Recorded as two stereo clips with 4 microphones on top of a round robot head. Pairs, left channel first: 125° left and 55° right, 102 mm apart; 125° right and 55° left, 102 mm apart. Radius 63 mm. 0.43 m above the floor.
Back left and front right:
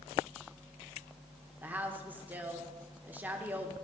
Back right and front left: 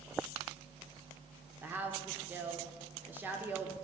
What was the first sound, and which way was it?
A woman speaking, straight ahead.